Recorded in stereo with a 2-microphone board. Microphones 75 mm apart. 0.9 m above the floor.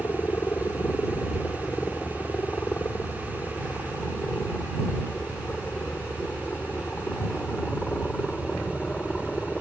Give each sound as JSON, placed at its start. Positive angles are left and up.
{"t": 0.0, "sound": "a helicopter", "side_deg": 35}